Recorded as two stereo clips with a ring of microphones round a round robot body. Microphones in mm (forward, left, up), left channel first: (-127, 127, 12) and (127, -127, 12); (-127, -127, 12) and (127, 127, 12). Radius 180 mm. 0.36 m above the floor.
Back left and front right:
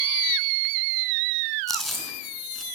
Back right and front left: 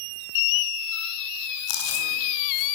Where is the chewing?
135° right, 5.5 m.